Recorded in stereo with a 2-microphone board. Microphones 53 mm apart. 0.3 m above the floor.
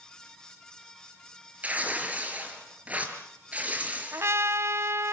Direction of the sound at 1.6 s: 30° right (ahead or behind).